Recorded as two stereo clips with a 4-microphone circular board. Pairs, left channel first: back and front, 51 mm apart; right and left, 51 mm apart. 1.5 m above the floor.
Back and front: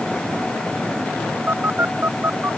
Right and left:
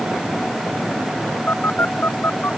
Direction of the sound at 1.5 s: 45° right.